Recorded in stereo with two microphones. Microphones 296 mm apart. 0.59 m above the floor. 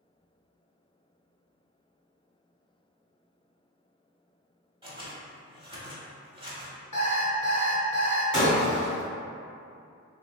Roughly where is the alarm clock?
Left.